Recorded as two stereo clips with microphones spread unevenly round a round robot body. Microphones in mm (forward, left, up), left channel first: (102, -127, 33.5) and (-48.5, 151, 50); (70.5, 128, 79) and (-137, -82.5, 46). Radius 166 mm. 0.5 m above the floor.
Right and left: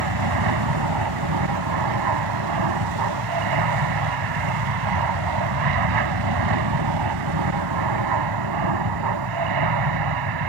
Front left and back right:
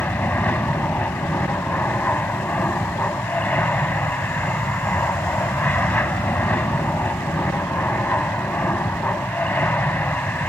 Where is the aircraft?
130° left.